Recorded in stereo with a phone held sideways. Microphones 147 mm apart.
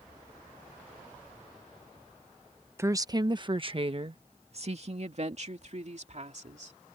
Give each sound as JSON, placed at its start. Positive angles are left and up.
{"t": 2.8, "sound": "a woman speaking", "side_deg": -20}